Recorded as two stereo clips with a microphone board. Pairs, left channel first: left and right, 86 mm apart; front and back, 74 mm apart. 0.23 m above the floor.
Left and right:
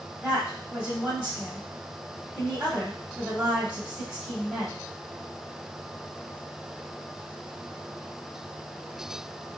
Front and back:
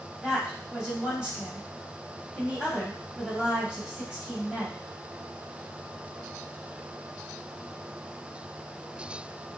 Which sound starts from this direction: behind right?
A woman speaking, at 0.2 s.